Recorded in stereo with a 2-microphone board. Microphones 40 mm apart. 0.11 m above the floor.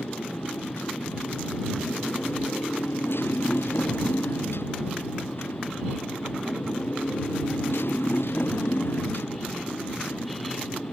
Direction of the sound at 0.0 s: 85° left.